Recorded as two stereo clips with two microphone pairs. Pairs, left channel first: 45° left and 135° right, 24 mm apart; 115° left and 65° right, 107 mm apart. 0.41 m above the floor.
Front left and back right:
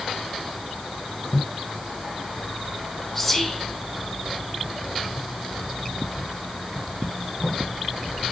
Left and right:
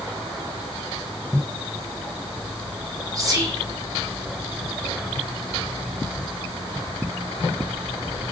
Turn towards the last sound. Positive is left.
turn(degrees=-30)